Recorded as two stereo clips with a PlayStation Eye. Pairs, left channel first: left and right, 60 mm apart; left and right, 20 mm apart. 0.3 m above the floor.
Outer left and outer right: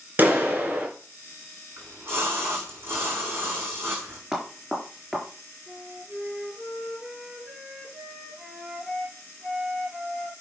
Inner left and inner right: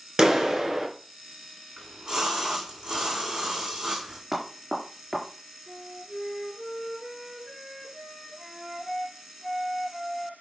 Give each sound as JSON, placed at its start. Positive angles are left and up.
{"t": 0.2, "sound": "a clap", "side_deg": -30, "distance_m": 3.0}
{"t": 1.8, "sound": "a splash", "side_deg": -45, "distance_m": 6.0}
{"t": 4.3, "sound": "knocking", "side_deg": -5, "distance_m": 3.5}
{"t": 5.7, "sound": "a flute", "side_deg": -10, "distance_m": 5.5}